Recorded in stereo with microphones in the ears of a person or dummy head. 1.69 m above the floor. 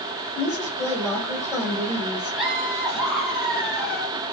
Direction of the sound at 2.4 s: Centre (ahead or behind).